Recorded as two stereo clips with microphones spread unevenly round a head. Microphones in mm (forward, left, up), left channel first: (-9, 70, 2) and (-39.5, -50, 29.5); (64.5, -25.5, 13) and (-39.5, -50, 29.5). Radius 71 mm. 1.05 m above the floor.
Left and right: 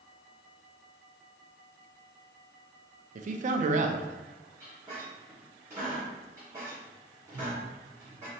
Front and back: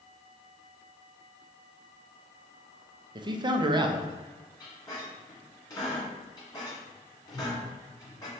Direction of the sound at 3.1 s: 120° right.